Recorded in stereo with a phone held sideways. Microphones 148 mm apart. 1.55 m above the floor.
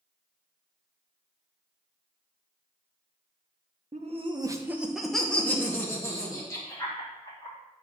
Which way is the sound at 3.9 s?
50° right (ahead or behind).